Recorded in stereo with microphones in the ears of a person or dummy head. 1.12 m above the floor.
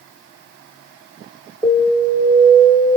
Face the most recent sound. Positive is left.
turn(degrees=10)  # may be behind; listen again after turning